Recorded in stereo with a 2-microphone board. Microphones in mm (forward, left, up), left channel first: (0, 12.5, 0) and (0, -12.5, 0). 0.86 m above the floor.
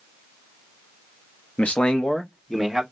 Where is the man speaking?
65° left (ahead or behind), 0.9 m; by 2.8 s 5° left (ahead or behind), 1.6 m.